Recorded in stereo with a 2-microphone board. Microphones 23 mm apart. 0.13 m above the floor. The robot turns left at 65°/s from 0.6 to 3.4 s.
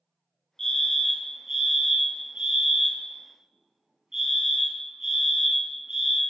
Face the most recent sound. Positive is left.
turn(degrees=-145)